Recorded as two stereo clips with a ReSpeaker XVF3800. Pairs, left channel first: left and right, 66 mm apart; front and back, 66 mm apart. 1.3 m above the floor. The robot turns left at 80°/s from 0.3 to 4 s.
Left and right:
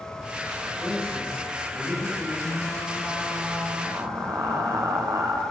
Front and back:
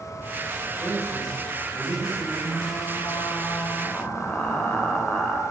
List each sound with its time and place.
0.8 s a man speaking: 135° right, 6.5 m; by 2.3 s 100° left, 6.5 m
2.4 s frying: 60° left, 3 m; by 5.4 s 65° right, 3 m